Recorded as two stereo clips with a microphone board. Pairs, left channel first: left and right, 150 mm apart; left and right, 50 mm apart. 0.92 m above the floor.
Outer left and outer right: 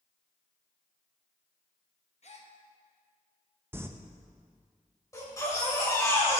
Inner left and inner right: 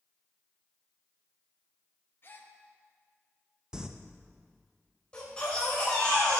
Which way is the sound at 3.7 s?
15° right (ahead or behind).